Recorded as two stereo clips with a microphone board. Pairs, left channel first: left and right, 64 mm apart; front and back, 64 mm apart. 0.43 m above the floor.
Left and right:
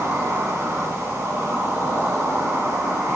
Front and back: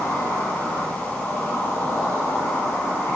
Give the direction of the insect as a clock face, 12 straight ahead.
2 o'clock.